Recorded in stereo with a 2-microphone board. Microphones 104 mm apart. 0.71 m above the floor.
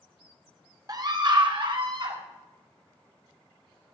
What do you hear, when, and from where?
0.9 s a scream: 35° right (ahead or behind), 0.8 m; by 2.2 s 55° right (ahead or behind), 1.6 m